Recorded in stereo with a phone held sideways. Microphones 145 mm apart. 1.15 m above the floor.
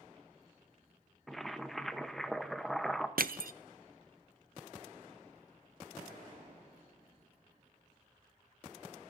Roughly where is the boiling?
Centre.